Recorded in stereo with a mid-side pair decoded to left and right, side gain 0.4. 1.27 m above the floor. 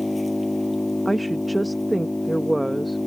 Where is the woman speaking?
10° right.